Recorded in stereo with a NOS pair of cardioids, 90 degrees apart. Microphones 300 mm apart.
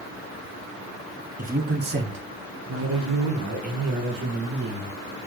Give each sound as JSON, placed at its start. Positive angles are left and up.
{"t": 1.4, "sound": "a man speaking", "azimuth_deg": -25, "distance_m": 1.0}